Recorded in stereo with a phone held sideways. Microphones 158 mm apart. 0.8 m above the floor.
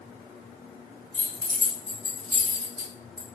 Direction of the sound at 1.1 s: 30° right (ahead or behind).